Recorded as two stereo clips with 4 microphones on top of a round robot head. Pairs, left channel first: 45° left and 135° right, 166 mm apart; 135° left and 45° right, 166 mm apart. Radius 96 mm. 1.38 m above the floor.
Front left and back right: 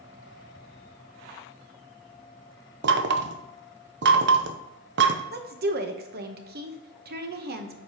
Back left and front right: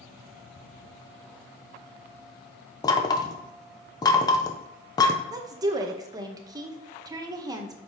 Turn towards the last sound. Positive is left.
turn(degrees=-115)